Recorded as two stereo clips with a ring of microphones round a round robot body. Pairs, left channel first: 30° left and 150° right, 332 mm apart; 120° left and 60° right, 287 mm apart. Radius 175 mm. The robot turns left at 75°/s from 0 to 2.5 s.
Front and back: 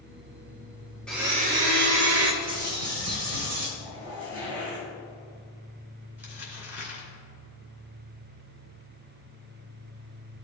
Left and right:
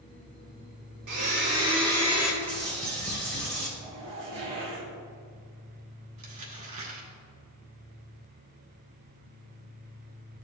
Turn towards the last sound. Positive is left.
turn(degrees=-65)